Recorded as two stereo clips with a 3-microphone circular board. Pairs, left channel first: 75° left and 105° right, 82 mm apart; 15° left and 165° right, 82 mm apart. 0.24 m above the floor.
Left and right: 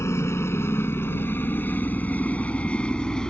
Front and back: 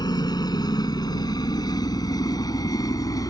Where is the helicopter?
25° left; by 3.3 s 5° right.